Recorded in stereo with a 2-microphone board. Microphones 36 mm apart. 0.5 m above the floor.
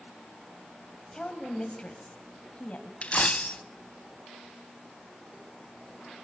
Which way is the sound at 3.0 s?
40° left (ahead or behind).